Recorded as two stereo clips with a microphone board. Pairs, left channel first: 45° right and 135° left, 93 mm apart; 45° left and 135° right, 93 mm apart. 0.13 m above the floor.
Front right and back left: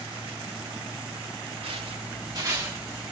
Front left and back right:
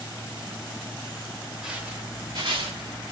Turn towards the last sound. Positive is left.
turn(degrees=-145)